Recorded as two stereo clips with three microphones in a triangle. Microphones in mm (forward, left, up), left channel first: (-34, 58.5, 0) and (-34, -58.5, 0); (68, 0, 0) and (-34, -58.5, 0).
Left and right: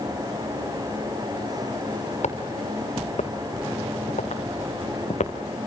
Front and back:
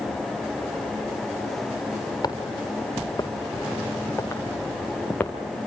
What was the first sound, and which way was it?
Footsteps, 85° left.